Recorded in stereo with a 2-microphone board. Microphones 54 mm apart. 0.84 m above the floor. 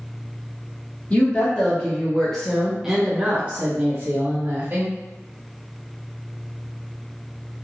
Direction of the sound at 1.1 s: 35° left (ahead or behind).